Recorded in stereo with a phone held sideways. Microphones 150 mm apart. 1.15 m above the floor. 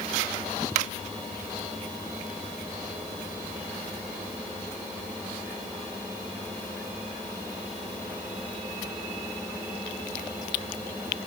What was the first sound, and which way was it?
Only background noise.